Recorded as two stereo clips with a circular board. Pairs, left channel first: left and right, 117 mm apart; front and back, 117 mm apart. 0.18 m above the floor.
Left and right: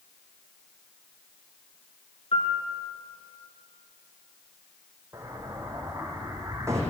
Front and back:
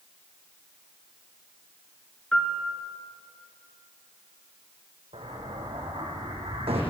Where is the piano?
80° left, 2.5 m.